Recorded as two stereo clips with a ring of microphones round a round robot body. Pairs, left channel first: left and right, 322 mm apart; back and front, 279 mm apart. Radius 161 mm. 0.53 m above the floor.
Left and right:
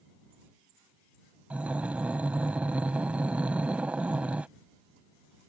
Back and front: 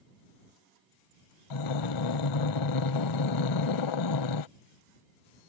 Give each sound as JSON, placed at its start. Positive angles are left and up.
{"t": 1.5, "sound": "breathing", "azimuth_deg": -175}